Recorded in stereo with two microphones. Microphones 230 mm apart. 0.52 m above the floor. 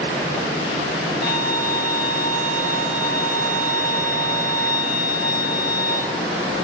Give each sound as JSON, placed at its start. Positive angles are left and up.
{"t": 1.2, "sound": "a violin", "side_deg": 0, "distance_m": 3.0}